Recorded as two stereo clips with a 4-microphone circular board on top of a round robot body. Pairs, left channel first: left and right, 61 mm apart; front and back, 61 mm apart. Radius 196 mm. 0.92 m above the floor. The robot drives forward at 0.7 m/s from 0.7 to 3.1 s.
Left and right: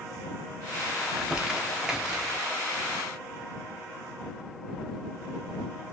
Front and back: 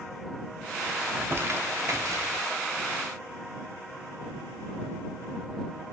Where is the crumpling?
155° right, 0.9 m; by 2.4 s 175° right, 1.5 m.